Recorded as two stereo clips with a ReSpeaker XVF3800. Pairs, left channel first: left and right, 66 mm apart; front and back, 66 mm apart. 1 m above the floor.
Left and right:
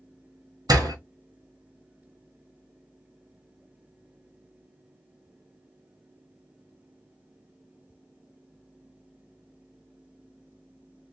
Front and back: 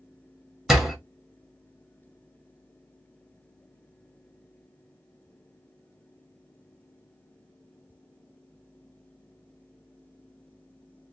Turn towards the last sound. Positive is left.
turn(degrees=-95)